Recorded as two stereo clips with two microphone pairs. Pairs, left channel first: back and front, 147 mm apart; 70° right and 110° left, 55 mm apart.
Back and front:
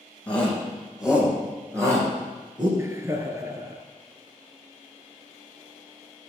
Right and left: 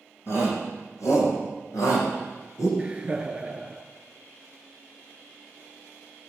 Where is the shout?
100° right, 5 m; by 2.7 s 60° right, 5.5 m.